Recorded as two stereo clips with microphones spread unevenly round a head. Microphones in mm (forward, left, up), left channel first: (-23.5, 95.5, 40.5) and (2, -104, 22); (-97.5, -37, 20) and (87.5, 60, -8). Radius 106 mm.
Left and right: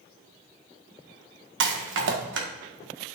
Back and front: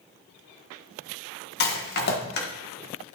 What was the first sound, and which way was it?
A rattle, 110° right.